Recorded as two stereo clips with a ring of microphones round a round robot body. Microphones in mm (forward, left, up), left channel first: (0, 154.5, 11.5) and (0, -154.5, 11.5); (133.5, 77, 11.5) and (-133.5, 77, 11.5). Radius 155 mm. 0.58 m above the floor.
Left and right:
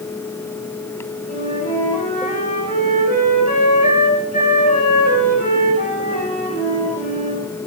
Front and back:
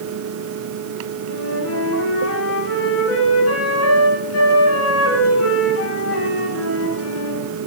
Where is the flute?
25° left, 8 m.